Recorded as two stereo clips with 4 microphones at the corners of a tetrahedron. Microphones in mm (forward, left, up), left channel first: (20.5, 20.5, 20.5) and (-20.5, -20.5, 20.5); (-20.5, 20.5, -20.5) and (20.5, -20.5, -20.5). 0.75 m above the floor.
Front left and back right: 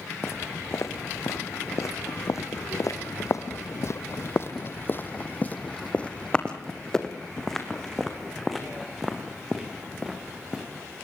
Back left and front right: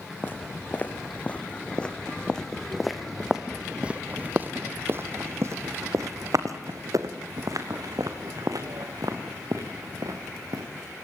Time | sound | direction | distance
0.2 | footsteps | 75° left | 2.5 m